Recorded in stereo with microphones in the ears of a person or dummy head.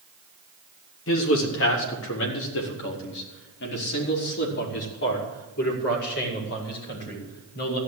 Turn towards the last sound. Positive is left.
turn(degrees=55)  # may be behind; listen again after turning